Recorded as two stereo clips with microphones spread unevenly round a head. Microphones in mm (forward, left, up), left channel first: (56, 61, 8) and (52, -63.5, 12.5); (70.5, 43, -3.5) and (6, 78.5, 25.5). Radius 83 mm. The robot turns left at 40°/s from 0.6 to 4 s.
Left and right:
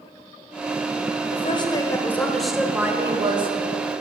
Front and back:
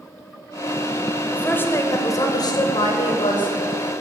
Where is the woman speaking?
45° left, 0.8 m; by 3.5 s 45° right, 0.8 m.